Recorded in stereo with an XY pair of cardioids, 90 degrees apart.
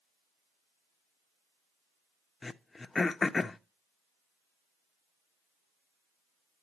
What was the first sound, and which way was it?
Throat clearing, 30° left.